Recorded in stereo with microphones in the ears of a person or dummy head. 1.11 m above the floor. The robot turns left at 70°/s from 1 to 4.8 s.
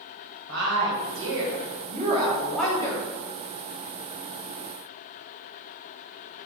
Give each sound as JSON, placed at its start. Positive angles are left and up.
{"t": 0.5, "sound": "a woman speaking", "azimuth_deg": -70, "distance_m": 1.0}